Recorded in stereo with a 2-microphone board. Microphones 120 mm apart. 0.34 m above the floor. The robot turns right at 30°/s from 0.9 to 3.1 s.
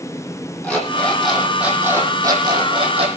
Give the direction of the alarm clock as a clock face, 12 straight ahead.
6 o'clock.